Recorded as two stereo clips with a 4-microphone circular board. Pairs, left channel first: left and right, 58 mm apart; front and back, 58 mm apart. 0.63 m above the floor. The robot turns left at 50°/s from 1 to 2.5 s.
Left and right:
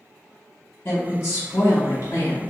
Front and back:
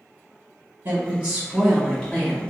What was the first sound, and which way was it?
A woman speaking, 145° left.